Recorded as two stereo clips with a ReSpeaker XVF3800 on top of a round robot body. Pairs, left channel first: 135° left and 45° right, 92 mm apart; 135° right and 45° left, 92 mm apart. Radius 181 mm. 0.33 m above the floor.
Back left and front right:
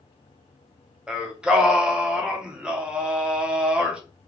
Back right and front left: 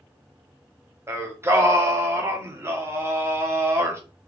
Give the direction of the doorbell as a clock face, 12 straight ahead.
I don't hear a doorbell.